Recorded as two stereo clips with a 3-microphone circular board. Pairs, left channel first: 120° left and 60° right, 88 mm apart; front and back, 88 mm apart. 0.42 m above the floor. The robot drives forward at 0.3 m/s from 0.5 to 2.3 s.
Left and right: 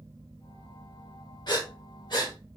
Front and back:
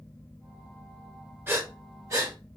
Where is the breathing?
125° left, 0.9 m; by 2.4 s 135° left, 1.1 m.